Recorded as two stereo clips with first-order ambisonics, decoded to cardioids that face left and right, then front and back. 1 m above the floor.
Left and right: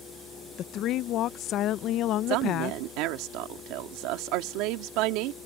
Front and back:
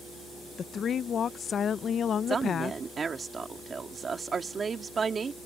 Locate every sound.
0.6 s a woman speaking: 55° left
2.3 s a woman speaking: 110° right